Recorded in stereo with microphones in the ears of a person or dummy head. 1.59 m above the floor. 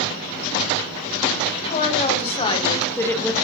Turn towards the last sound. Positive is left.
turn(degrees=5)  # may be behind; listen again after turning